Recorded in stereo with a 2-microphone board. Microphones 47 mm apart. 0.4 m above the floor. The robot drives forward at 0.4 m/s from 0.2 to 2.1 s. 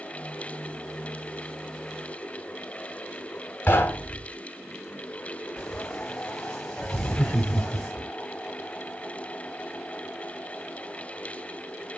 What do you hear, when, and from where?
3.7 s knocking: 40° left (ahead or behind), 2.5 m
5.6 s frying: 15° left (ahead or behind), 3 m
6.9 s laughter: 10° left (ahead or behind), 0.8 m